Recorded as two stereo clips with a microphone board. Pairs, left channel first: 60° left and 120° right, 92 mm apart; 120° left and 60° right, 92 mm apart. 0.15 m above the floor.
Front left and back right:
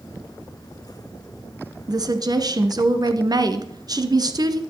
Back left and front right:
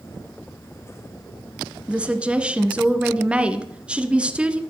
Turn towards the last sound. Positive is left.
turn(degrees=-135)